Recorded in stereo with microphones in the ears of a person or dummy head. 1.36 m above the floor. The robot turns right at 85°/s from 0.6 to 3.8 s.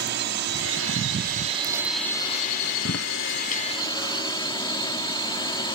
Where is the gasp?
I don't hear a gasp.